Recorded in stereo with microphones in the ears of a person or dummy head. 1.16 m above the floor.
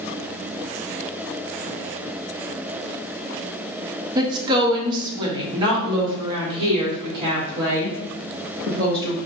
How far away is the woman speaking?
About 0.9 m.